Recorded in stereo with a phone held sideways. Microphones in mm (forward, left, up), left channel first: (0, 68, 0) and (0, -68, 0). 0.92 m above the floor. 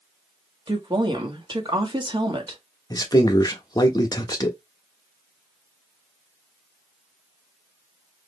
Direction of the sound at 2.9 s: 30° left (ahead or behind).